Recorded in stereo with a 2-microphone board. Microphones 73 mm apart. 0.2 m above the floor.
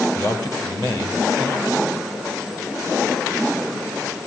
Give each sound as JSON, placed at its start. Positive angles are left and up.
{"t": 0.1, "sound": "a man speaking", "side_deg": 60, "distance_m": 4.5}